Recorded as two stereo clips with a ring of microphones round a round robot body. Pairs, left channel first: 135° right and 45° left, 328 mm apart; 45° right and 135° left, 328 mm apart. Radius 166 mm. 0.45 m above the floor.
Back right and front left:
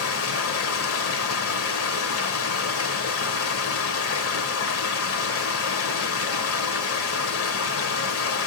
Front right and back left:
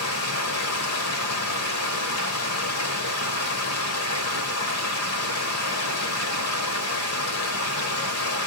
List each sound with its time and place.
0.0 s running water: 90° right, 1.2 m